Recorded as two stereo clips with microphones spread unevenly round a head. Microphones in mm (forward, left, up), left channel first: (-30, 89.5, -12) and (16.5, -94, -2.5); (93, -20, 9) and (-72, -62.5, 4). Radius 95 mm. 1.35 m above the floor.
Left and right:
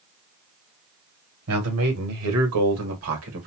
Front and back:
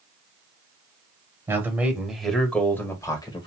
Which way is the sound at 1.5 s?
90° right.